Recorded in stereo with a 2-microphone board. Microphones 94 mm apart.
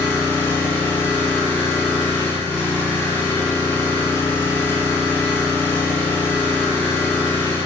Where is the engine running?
20° left (ahead or behind), 1.0 m.